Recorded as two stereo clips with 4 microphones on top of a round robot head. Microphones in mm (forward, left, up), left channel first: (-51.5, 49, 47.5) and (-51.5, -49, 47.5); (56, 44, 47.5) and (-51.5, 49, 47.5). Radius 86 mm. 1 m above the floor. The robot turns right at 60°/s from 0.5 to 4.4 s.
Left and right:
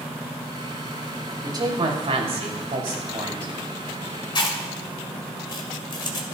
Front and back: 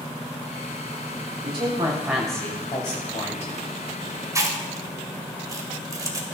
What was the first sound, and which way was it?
A woman speaking, 140° right.